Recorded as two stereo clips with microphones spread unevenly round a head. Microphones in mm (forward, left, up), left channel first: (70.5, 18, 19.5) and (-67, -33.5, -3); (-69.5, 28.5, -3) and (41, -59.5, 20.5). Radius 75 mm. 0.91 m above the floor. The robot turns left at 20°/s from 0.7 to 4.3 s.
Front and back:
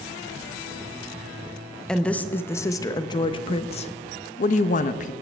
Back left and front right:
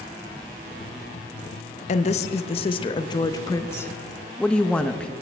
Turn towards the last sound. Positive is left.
turn(degrees=60)